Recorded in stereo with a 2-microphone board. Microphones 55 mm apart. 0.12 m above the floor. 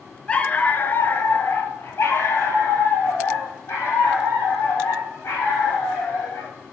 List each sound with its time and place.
0.3 s a dog barking: 20° left (ahead or behind), 0.6 m; by 6.5 s 55° left (ahead or behind), 3.5 m